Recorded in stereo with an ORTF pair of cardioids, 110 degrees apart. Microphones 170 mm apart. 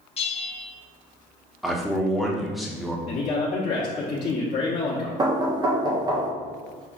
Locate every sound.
0.2 s a bell: 35° left, 0.7 m
1.6 s a man speaking: straight ahead, 0.9 m
3.1 s a man speaking: 45° left, 0.9 m
5.2 s knocking: 25° right, 0.6 m